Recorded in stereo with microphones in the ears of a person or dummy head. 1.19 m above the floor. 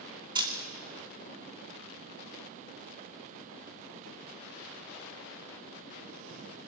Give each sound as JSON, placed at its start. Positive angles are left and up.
{"t": 0.3, "sound": "a camera shutter", "side_deg": -20, "distance_m": 2.5}